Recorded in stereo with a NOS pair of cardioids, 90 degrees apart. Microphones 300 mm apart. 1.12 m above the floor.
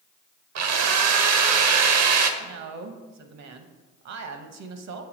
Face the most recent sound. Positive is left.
turn(degrees=-60)